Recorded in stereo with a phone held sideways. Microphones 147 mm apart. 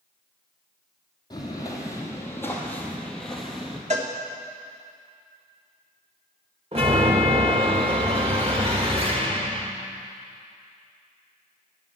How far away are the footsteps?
About 3 m.